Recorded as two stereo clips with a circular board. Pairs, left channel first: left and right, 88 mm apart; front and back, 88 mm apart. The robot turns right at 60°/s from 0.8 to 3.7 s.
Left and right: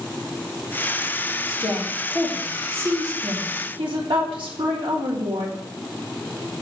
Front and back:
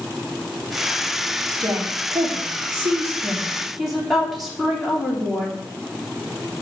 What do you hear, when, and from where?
1.5 s a woman speaking: 135° left, 3.5 m; by 5.5 s 90° right, 3.5 m